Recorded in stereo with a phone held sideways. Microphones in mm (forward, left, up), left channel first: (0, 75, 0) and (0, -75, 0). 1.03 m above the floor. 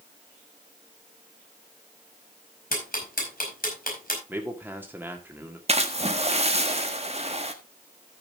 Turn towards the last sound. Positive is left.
turn(degrees=-45)  # may be behind; listen again after turning